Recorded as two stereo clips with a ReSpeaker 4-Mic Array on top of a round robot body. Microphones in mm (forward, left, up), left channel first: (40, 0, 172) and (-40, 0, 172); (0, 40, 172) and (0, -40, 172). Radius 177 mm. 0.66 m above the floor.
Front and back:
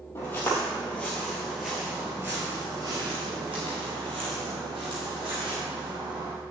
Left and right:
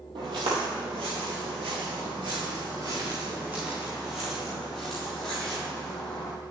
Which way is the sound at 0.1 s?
65° right.